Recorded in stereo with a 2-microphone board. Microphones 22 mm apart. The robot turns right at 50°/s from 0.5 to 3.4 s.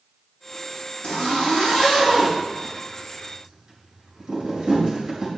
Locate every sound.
1.0 s a zipper: 85° left, 5 m; by 5.3 s 35° right (ahead or behind), 5 m